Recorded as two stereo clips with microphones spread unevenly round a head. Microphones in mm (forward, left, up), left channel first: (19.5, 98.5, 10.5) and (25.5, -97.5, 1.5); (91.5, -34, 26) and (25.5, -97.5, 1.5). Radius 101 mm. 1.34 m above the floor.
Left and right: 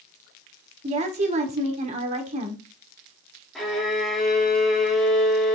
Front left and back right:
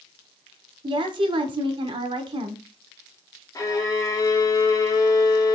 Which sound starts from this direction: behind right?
A woman speaking, at 0.8 s.